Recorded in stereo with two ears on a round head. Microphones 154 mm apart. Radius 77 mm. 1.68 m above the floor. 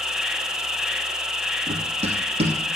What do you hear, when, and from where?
0.0 s an insect: 5° right (ahead or behind), 0.9 m
1.7 s running footsteps: 35° right (ahead or behind), 2.5 m